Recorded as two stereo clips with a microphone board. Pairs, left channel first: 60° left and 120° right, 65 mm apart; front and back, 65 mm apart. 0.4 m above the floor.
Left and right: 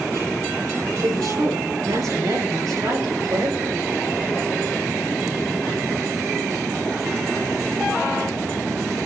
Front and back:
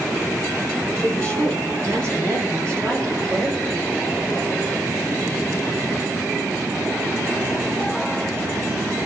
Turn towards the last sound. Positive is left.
turn(degrees=-145)